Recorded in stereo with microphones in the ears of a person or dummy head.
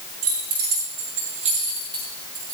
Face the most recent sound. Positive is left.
turn(degrees=-25)  # may be behind; listen again after turning